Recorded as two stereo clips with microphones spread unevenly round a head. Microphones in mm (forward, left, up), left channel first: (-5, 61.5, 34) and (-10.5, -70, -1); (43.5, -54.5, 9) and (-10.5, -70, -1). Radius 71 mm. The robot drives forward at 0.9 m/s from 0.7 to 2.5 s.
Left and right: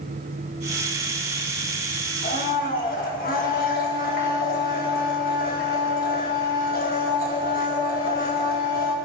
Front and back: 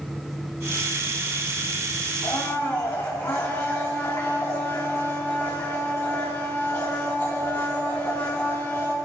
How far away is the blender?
About 2.5 m.